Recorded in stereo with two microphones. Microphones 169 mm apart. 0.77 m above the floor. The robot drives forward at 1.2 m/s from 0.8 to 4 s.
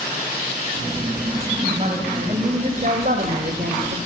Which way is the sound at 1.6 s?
40° right (ahead or behind).